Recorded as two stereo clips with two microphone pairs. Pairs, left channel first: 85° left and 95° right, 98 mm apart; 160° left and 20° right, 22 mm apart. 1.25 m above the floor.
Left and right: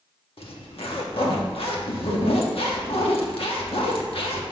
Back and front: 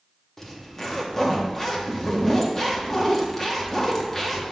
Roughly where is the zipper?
Left.